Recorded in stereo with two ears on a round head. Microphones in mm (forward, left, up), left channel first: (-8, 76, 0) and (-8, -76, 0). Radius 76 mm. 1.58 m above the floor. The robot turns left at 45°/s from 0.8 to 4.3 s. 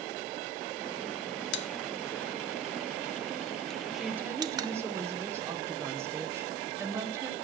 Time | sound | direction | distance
1.5 | a pop | 80° left | 0.7 m
3.9 | a woman speaking | centre (ahead or behind) | 1.6 m